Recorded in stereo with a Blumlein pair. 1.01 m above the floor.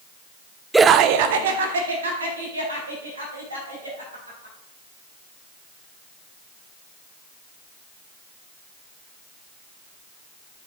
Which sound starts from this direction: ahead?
Laughter, at 0.7 s.